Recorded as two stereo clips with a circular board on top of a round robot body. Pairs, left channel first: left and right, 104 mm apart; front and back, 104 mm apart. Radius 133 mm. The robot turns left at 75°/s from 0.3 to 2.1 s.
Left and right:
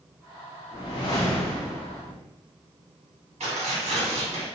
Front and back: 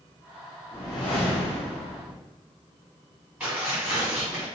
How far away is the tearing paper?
About 1.5 m.